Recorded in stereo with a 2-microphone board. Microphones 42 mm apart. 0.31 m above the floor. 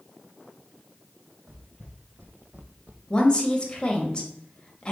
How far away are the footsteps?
About 1.5 m.